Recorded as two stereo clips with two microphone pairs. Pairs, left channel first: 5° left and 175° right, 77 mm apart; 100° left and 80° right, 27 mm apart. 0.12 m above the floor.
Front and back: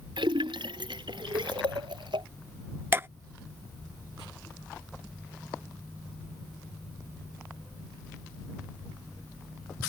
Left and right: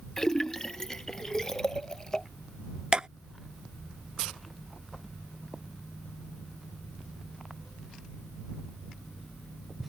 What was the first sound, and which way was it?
A splash, 170° left.